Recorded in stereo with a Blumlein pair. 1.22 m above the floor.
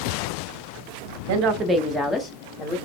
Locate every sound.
1.3 s a woman speaking: 50° right, 0.9 m; by 2.8 s 30° left, 2 m